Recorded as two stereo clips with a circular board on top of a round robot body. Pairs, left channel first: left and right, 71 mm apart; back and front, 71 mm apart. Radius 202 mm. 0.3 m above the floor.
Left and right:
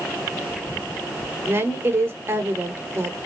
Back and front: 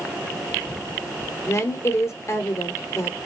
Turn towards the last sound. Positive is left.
turn(degrees=-140)